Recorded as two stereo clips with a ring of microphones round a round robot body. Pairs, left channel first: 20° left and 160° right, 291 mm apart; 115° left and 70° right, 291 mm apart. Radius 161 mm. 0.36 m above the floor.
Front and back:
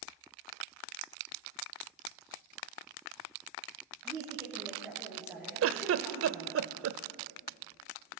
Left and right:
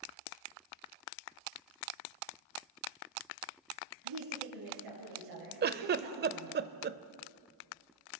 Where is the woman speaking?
70° right, 6.5 m.